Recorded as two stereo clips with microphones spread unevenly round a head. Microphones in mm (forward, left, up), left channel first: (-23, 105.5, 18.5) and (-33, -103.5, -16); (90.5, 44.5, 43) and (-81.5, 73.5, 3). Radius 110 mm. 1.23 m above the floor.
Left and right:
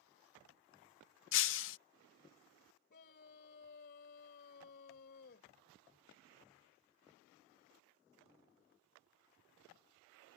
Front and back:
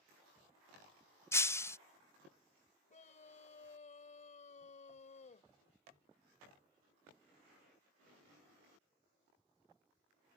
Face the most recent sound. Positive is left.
turn(degrees=35)